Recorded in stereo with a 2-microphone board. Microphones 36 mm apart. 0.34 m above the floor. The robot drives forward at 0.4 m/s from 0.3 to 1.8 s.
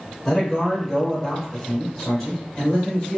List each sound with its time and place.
0.2 s a man speaking: 10° left (ahead or behind), 1.0 m